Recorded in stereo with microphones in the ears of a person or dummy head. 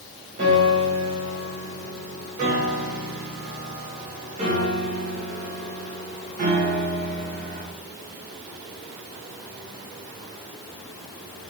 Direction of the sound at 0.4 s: 40° right (ahead or behind).